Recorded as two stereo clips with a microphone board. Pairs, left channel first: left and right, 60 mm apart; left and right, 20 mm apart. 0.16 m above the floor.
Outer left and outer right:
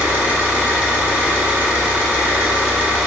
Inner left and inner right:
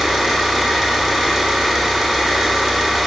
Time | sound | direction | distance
0.0 | an engine running | 20° right (ahead or behind) | 0.8 m